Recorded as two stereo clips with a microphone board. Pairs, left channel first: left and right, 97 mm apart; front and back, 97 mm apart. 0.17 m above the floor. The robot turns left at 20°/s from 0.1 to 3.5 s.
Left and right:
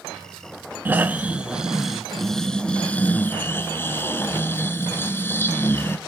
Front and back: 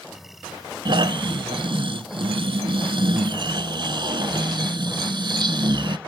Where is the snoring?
155° right, 0.6 m; by 6.0 s 150° left, 0.6 m.